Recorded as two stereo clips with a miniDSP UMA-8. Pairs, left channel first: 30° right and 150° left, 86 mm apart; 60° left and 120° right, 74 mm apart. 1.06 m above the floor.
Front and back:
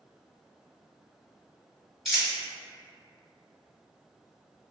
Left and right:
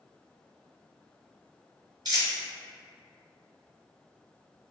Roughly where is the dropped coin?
Behind right.